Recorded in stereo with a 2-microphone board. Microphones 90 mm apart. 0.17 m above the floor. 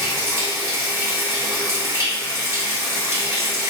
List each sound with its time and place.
0.0 s running water: 35° right (ahead or behind), 1.0 m